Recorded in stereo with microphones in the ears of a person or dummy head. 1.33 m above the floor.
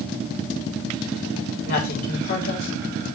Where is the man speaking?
50° left (ahead or behind), 4 m.